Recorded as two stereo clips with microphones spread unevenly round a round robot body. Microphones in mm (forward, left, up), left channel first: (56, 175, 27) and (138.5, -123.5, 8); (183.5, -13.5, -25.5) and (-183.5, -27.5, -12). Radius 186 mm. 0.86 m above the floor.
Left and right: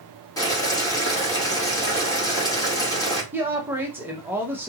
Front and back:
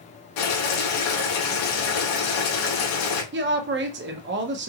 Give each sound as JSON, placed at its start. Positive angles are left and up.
{"t": 0.4, "sound": "boiling", "azimuth_deg": 25, "distance_m": 2.5}
{"t": 3.3, "sound": "a woman speaking", "azimuth_deg": -145, "distance_m": 0.9}